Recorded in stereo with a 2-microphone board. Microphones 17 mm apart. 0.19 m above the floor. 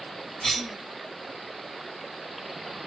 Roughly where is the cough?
Left.